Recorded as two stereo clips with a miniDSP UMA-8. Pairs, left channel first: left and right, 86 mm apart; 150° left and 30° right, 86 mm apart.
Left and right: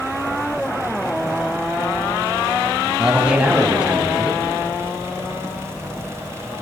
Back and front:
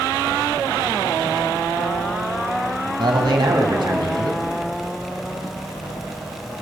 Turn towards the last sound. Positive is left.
turn(degrees=-15)